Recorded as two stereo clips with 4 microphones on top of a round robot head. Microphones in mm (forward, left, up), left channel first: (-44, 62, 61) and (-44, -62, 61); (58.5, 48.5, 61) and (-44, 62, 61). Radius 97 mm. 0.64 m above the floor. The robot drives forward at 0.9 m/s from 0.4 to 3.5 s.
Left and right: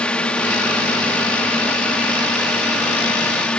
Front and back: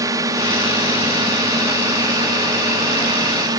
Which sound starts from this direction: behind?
A drone, at 0.0 s.